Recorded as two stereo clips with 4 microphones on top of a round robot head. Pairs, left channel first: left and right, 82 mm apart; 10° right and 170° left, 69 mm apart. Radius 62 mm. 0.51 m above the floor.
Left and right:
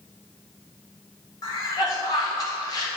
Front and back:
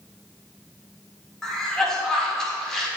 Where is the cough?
70° left, 1.9 m.